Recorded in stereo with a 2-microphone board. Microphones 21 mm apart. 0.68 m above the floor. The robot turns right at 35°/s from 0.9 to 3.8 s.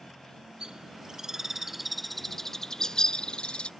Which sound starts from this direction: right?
A bird, at 0.6 s.